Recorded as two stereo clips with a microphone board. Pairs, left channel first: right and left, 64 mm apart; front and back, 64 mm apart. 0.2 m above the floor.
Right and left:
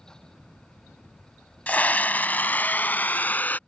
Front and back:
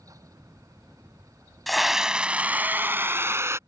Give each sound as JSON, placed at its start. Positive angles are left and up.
{"t": 1.7, "sound": "a scream", "azimuth_deg": -85}